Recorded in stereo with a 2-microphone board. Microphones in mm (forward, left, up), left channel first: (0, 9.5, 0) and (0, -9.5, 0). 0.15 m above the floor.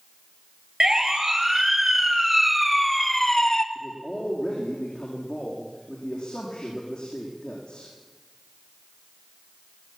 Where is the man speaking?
50° left (ahead or behind), 7 m.